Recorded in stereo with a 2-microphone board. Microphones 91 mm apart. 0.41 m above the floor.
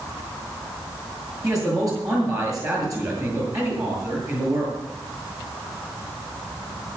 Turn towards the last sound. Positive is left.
turn(degrees=-40)  # may be behind; listen again after turning